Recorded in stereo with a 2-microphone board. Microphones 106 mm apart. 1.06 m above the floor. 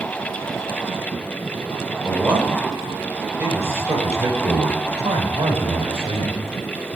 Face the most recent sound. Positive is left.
turn(degrees=-45)  # may be behind; listen again after turning